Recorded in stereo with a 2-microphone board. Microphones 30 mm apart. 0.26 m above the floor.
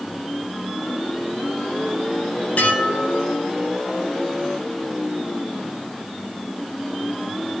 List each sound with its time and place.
2.6 s dishes clattering: 50° left (ahead or behind), 5.5 m